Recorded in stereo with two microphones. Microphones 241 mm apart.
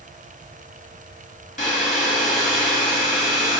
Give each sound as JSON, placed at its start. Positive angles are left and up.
{"t": 1.6, "sound": "a hair dryer", "side_deg": 35, "distance_m": 1.1}